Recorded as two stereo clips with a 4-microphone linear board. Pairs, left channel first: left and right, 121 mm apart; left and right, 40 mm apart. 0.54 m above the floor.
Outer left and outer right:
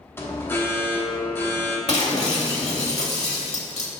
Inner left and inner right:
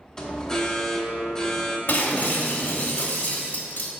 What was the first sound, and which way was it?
An alarm, 20° left (ahead or behind).